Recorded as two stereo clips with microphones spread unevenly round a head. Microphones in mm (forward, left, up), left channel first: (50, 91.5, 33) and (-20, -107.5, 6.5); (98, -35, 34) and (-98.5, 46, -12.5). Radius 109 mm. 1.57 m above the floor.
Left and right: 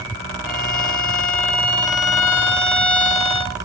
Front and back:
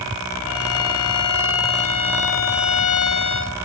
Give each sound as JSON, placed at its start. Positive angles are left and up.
{"t": 0.5, "sound": "a violin", "azimuth_deg": -15, "distance_m": 3.5}